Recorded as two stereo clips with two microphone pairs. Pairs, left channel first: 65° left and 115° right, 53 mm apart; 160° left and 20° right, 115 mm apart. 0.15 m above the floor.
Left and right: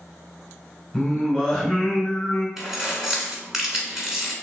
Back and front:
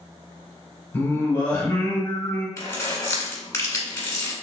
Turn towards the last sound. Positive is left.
turn(degrees=170)